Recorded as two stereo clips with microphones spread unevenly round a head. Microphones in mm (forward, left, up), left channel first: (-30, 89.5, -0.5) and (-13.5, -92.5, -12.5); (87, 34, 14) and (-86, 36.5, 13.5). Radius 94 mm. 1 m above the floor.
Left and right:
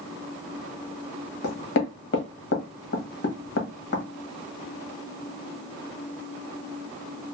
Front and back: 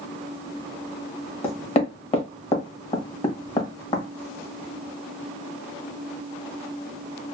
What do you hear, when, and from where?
1.4 s knocking: 55° left, 1.2 m